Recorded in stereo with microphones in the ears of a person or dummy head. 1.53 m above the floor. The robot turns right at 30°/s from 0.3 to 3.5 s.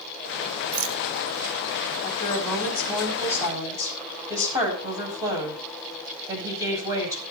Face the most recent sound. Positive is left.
turn(degrees=-165)